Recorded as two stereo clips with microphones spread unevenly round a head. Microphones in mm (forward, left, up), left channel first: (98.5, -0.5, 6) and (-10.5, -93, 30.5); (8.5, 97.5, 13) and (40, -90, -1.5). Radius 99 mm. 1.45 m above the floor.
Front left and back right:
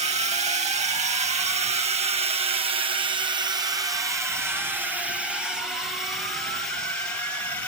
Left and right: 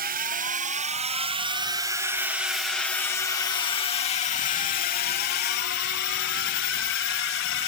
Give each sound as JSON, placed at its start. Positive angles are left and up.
{"t": 0.0, "sound": "a drone", "azimuth_deg": -105}